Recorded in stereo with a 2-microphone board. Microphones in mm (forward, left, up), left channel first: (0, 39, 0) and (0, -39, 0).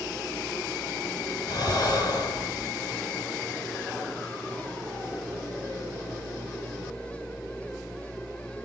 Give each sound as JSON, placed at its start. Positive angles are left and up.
{"t": 1.5, "sound": "breathing", "side_deg": 50, "distance_m": 3.5}